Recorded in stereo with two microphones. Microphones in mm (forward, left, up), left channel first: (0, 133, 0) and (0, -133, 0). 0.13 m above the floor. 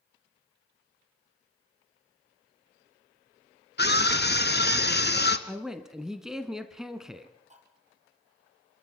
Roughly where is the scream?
Left.